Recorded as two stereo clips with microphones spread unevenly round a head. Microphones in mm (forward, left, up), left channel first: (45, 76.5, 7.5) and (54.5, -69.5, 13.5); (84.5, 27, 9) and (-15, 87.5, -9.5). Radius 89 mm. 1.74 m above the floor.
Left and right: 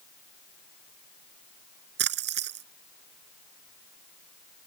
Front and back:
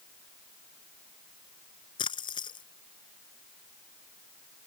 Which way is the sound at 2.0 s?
95° right.